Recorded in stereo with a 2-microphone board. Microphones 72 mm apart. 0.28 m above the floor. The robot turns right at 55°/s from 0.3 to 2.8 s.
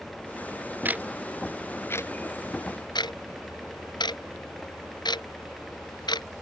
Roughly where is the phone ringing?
I don't hear a phone ringing.